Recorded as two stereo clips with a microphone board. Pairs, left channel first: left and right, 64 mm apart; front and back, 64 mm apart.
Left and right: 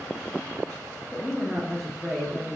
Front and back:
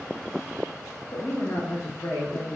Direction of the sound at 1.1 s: Straight ahead.